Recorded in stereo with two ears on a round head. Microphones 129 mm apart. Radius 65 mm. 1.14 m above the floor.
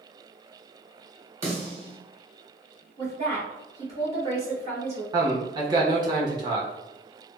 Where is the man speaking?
30° right (ahead or behind), 0.9 m.